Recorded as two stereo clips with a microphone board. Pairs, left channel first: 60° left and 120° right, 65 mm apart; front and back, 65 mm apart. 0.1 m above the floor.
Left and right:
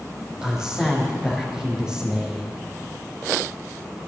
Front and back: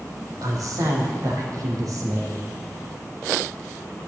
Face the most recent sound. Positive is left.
turn(degrees=160)